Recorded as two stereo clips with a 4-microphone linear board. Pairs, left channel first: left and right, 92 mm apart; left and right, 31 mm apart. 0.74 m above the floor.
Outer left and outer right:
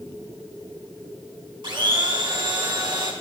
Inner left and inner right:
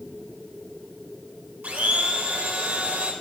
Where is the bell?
I don't hear a bell.